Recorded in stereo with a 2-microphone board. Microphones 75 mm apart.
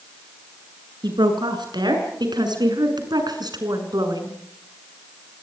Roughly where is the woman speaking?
Right.